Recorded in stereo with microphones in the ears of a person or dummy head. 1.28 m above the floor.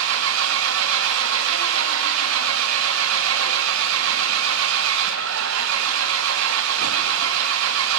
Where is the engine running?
75° right (ahead or behind), 0.9 m.